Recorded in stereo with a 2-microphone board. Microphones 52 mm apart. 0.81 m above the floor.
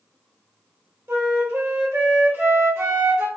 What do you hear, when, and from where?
1.1 s a flute: 55° right (ahead or behind), 1.1 m